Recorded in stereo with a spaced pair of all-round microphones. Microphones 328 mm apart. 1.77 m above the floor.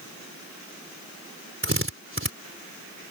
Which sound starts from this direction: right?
A drill, at 1.6 s.